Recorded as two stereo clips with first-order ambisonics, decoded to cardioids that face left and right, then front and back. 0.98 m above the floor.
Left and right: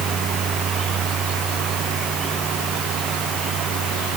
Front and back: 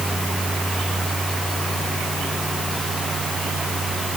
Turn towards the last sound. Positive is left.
No sound to turn to.